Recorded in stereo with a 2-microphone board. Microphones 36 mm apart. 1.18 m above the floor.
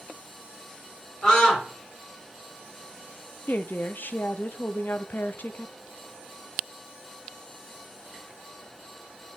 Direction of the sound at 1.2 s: 20° left (ahead or behind).